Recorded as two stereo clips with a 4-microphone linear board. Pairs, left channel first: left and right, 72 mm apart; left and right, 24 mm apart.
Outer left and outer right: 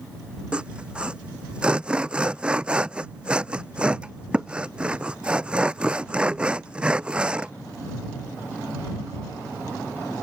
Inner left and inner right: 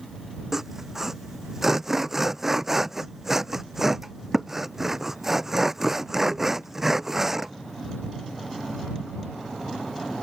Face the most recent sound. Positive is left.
turn(degrees=-15)  # may be behind; listen again after turning